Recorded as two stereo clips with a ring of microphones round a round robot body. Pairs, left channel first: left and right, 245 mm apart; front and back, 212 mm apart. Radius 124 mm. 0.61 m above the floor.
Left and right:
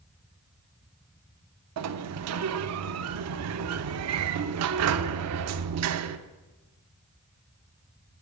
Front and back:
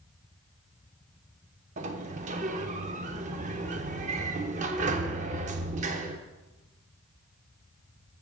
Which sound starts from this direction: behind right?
A sliding door, at 1.8 s.